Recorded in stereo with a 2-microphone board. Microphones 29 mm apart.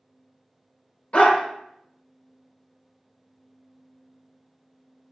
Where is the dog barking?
40° left (ahead or behind), 0.6 m.